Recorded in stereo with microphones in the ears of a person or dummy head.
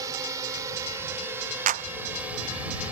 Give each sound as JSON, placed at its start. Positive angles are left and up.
{"t": 0.0, "sound": "a drone", "side_deg": -20}
{"t": 1.7, "sound": "a clap", "side_deg": -40}